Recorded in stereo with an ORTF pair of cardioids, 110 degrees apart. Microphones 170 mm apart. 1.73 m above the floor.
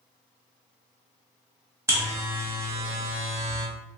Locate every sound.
1.9 s a buzzer: 15° right, 0.9 m